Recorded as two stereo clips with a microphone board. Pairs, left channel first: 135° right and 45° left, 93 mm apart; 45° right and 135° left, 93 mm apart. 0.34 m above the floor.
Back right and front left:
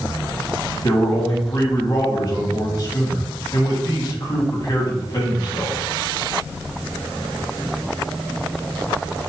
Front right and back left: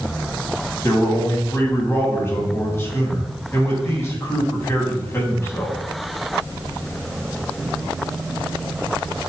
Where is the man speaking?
100° right, 2.5 m.